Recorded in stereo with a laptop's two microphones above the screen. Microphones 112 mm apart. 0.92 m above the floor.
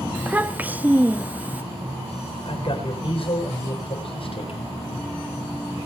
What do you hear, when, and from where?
0.1 s a child speaking: 15° right (ahead or behind), 0.9 m
2.5 s a man speaking: 55° left (ahead or behind), 4 m